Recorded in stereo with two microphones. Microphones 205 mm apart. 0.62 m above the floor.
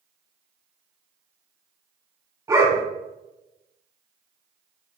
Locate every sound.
2.5 s a dog barking: 20° right (ahead or behind), 1.7 m